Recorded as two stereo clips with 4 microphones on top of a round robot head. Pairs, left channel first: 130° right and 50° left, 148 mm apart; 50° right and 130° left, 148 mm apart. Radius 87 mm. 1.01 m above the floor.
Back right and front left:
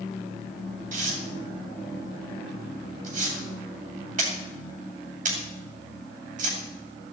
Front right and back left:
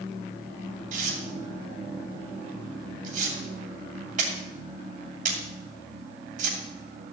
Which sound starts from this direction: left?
Tearing paper, at 0.9 s.